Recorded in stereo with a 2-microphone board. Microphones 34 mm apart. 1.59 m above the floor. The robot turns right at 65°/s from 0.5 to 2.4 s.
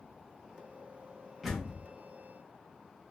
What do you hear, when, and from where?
1.4 s a door slam: 5° right (ahead or behind), 1.3 m; by 1.8 s 20° left (ahead or behind), 1.3 m